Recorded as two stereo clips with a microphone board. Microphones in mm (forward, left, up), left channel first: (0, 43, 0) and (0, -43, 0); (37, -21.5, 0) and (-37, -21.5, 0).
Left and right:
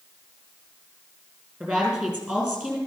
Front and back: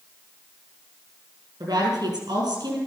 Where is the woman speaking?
165° right, 5 m.